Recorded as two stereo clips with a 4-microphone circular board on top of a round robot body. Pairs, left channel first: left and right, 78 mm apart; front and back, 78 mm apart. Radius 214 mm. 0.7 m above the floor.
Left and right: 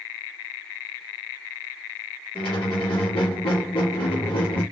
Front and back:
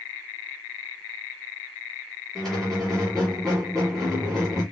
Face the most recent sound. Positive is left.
turn(degrees=85)